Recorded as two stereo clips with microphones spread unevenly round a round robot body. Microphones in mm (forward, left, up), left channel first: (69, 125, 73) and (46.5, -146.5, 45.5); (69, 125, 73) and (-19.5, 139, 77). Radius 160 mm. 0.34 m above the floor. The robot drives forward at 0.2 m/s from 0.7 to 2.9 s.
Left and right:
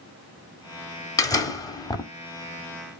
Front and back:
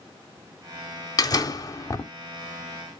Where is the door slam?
5° left, 0.8 m; by 2.1 s 10° left, 0.7 m.